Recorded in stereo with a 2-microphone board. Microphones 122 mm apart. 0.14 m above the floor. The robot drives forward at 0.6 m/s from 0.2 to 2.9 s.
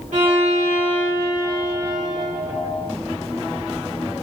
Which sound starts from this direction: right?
A violin, at 0.1 s.